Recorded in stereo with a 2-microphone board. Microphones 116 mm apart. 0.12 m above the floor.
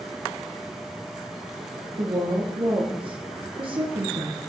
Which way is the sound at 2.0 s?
50° right (ahead or behind).